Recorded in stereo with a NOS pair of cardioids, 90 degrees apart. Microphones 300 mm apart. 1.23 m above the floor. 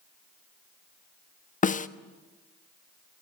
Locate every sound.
1.6 s a snare drum: 25° left, 1.1 m